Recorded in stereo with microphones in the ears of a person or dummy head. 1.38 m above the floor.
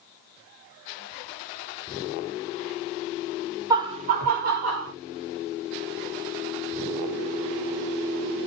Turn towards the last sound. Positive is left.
turn(degrees=-65)  # may be behind; listen again after turning